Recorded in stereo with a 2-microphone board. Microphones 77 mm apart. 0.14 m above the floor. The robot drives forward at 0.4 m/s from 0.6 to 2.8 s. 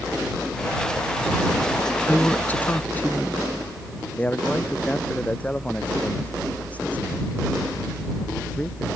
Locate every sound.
2.1 s a woman speaking: 20° left (ahead or behind); by 3.4 s 25° left (ahead or behind)
4.2 s a man speaking: 20° left (ahead or behind)